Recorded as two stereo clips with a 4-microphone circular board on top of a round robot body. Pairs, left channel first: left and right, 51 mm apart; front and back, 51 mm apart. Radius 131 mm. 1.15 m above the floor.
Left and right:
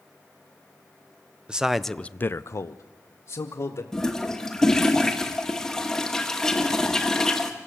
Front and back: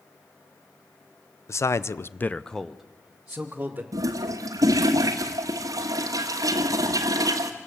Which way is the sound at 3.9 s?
175° left.